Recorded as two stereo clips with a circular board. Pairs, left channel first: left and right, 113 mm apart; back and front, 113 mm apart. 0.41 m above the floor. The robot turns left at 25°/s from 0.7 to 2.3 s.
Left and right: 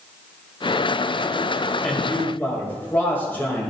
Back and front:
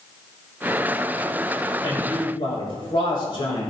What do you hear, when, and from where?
1.8 s a man speaking: 170° left, 2.5 m; by 3.7 s 160° left, 2.5 m